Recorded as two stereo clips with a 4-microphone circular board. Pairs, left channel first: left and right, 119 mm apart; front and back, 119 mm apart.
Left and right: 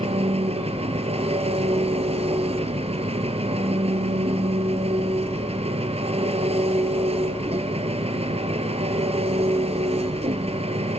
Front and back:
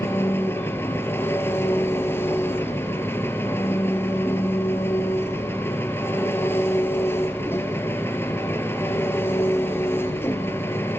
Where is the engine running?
70° right, 2 m.